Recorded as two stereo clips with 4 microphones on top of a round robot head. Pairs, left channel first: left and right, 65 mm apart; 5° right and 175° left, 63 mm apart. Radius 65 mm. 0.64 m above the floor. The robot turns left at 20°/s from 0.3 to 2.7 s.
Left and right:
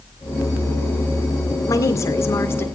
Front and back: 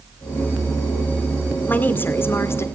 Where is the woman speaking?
55° left, 2.0 m; by 2.7 s 35° left, 2.0 m.